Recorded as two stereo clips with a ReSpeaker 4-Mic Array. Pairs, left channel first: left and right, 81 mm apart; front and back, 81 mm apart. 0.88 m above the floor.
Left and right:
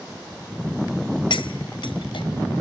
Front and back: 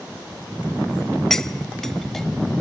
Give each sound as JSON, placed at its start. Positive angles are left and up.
{"t": 1.3, "sound": "cutlery clinking", "azimuth_deg": 85, "distance_m": 0.7}